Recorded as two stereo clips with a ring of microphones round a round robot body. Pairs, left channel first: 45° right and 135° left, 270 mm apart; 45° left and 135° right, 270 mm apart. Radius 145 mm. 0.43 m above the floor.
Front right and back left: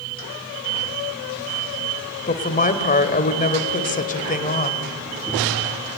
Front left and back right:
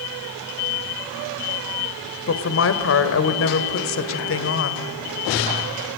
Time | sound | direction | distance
2.3 | a woman speaking | 15° left | 1.8 m